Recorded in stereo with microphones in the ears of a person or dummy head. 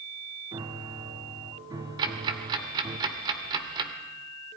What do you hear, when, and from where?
0.5 s a piano: 20° right (ahead or behind), 1.3 m
2.0 s ticking: 25° right (ahead or behind), 2 m